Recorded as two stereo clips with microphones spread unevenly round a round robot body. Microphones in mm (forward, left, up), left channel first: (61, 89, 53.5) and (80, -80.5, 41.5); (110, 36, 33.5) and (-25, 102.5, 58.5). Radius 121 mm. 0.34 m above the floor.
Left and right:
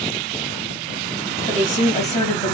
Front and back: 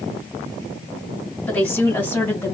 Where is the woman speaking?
50° left, 2.5 m; by 2.5 s 45° left, 1.9 m.